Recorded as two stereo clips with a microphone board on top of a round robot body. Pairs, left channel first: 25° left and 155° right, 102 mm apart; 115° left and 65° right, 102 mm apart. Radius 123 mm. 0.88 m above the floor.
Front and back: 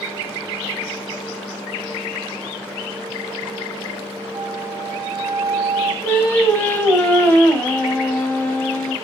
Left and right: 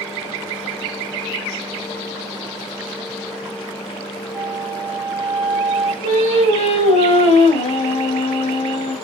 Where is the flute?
100° right, 3 m.